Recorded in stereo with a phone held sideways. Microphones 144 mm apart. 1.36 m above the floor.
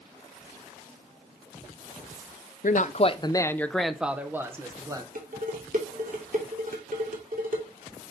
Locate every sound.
2.6 s a man speaking: 65° left (ahead or behind), 0.6 m; by 5.0 s 25° right (ahead or behind), 1.3 m
5.2 s dishes clattering: 65° right (ahead or behind), 2.5 m